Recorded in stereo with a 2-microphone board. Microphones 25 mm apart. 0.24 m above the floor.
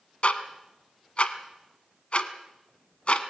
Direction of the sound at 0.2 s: 55° left (ahead or behind).